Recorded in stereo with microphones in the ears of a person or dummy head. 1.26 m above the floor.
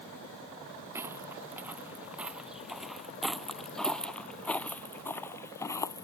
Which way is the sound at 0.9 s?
15° right (ahead or behind).